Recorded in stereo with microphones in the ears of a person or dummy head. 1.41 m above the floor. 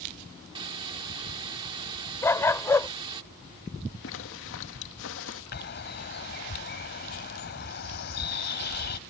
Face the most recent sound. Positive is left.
turn(degrees=55)  # may be behind; listen again after turning